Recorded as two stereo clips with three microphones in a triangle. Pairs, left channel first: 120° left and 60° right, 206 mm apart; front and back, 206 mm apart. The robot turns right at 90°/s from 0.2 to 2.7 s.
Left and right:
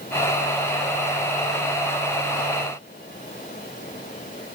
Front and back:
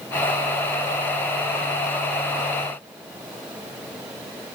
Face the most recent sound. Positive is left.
No sound to turn to.